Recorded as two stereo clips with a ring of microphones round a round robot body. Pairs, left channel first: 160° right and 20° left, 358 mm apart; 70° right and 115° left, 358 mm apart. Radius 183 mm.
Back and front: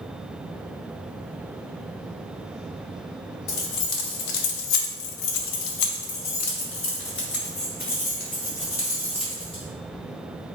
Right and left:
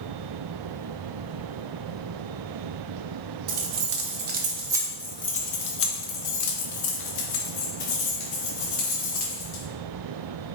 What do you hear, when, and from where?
3.5 s keys jangling: 155° left, 1.0 m; by 9.6 s 80° right, 2.5 m